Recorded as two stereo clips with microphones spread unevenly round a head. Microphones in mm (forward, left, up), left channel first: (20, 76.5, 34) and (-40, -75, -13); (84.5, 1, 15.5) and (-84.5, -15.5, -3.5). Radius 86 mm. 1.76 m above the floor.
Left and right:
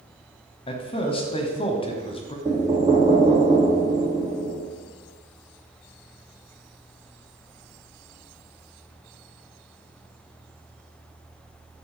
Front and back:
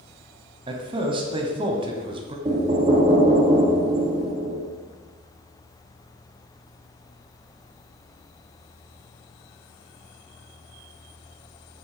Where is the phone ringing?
No phone ringing in this recording.